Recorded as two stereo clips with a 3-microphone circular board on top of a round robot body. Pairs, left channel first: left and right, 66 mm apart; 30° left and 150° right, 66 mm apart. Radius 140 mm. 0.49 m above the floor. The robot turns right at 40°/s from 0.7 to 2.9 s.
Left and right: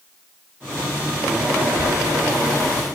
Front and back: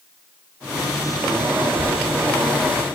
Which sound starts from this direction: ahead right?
A child speaking, at 1.6 s.